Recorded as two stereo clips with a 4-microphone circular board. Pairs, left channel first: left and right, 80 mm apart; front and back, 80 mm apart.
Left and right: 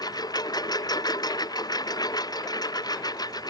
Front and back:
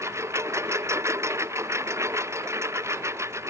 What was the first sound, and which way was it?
A lawn mower, 125° left.